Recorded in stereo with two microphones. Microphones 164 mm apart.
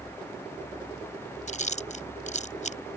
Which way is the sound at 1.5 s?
45° left (ahead or behind).